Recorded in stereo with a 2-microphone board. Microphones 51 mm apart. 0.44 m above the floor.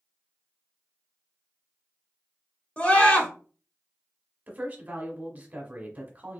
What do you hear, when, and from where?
2.8 s a scream: 30° left (ahead or behind), 1.5 m
4.5 s a woman speaking: 30° right (ahead or behind), 1.4 m